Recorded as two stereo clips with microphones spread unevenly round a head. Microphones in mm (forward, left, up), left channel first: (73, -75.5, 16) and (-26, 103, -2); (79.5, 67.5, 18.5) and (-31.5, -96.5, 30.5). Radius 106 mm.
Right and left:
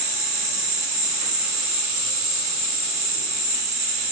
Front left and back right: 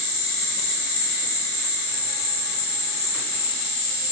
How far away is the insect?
About 1.0 m.